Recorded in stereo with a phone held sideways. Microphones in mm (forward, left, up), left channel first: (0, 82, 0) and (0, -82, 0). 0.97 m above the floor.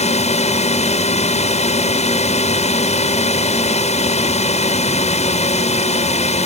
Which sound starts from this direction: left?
A drone, at 0.0 s.